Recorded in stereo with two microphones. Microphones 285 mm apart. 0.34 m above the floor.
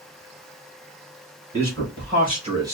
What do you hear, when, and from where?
1.5 s a man speaking: 50° right (ahead or behind), 1.4 m; by 2.8 s 10° right (ahead or behind), 0.9 m